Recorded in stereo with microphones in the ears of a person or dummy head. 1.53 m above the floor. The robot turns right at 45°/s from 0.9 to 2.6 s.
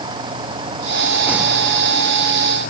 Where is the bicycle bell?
No bicycle bell in this recording.